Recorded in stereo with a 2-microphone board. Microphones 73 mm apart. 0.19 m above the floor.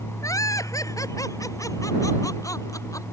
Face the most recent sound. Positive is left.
turn(degrees=50)  # may be behind; listen again after turning